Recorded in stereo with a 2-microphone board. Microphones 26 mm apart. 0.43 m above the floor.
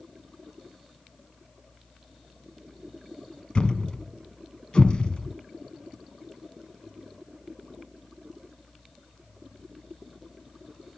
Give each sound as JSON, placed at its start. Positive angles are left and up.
{"t": 3.5, "sound": "a thud", "side_deg": 35, "distance_m": 0.7}